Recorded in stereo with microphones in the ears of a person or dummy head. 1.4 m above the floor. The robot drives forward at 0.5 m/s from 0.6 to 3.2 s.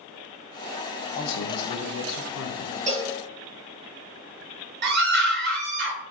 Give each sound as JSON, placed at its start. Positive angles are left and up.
{"t": 1.1, "sound": "a man speaking", "side_deg": 50, "distance_m": 1.2}
{"t": 2.9, "sound": "a cowbell", "side_deg": -40, "distance_m": 1.1}
{"t": 4.8, "sound": "a scream", "side_deg": -60, "distance_m": 1.2}